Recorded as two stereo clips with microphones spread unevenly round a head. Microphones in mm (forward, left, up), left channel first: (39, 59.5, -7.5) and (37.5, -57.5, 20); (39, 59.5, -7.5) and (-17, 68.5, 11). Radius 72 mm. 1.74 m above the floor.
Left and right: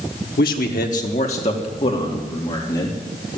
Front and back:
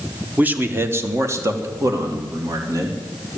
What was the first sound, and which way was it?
A man speaking, 115° left.